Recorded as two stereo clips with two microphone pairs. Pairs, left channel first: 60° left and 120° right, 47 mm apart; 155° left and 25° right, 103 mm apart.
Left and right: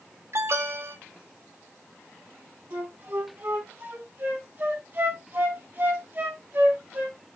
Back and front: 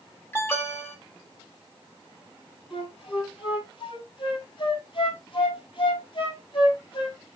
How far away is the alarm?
About 2.5 m.